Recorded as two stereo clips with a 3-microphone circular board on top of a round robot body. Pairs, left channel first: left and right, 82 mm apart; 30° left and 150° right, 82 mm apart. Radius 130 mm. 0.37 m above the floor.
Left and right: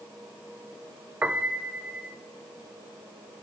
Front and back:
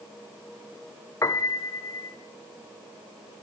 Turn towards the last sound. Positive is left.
turn(degrees=-20)